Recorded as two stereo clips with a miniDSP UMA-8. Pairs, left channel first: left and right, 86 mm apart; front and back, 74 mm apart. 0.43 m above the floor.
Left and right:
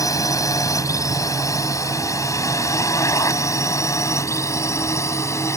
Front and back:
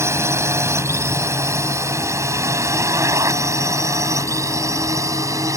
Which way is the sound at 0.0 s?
135° left.